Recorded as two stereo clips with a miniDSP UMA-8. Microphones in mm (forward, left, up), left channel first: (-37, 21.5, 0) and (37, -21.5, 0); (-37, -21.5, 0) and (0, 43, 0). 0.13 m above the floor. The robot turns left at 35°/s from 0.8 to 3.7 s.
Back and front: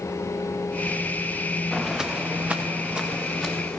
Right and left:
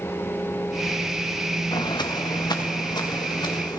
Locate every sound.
1.7 s footsteps: 120° right, 1.1 m